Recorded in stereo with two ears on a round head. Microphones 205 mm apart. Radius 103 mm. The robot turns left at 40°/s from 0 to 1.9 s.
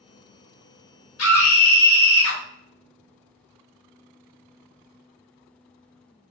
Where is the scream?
65° left (ahead or behind), 1.6 m; by 2.4 s 60° left (ahead or behind), 1.6 m.